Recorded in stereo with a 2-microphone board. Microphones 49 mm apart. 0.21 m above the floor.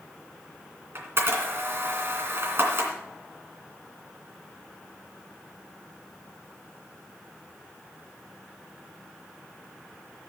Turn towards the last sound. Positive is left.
turn(degrees=-50)  # may be behind; listen again after turning